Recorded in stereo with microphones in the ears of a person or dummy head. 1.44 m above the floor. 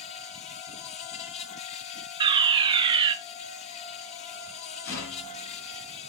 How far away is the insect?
About 0.9 m.